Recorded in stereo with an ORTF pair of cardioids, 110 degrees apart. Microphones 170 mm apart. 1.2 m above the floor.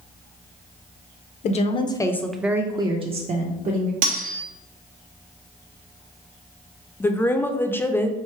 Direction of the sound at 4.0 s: 60° right.